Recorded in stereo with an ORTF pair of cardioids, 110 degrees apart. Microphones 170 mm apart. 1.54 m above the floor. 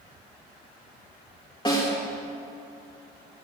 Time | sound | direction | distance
1.6 | a snare drum | 25° left | 3.5 m